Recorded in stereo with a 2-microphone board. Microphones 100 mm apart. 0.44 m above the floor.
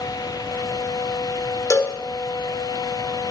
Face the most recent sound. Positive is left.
turn(degrees=35)  # may be behind; listen again after turning